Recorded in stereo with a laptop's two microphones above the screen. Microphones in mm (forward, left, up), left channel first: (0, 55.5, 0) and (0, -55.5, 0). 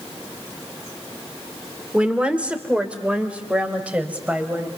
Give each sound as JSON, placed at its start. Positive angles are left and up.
{"t": 1.9, "sound": "a woman speaking", "side_deg": -10, "distance_m": 2.5}